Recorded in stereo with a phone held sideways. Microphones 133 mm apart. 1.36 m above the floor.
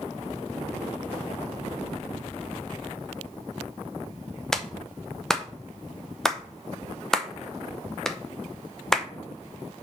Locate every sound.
4.5 s a clap: 5° left (ahead or behind), 0.7 m